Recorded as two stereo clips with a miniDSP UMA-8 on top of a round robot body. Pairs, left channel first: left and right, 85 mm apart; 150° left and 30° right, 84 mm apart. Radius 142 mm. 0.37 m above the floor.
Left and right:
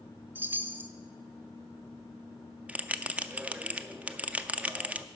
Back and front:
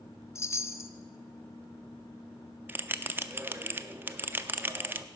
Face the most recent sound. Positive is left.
turn(degrees=-40)